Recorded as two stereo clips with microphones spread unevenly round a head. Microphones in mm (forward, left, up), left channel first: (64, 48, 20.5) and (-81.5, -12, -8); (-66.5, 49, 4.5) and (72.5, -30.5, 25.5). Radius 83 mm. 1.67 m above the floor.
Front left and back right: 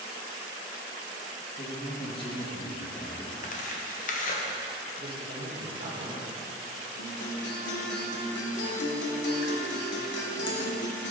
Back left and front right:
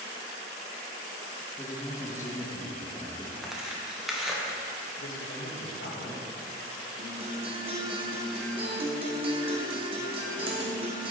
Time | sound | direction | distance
1.6 | a man speaking | 75° left | 2 m
3.4 | tearing paper | 60° left | 1.4 m
5.0 | a man speaking | 150° left | 2.5 m
7.0 | a guitar | 25° left | 1.9 m